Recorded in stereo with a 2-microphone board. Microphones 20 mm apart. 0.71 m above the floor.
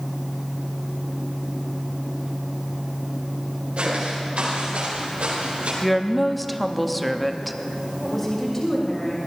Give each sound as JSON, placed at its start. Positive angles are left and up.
{"t": 3.8, "sound": "footsteps", "side_deg": -75, "distance_m": 5.0}
{"t": 5.8, "sound": "a woman speaking", "side_deg": 5, "distance_m": 0.7}
{"t": 8.0, "sound": "a woman speaking", "side_deg": 15, "distance_m": 2.5}